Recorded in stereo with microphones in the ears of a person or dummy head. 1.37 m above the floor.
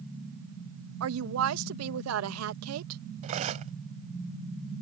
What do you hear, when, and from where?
1.0 s a woman speaking: 85° right
3.2 s cutlery clinking: 40° right (ahead or behind)